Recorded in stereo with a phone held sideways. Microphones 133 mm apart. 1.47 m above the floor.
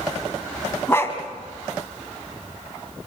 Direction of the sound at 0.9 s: 20° left (ahead or behind).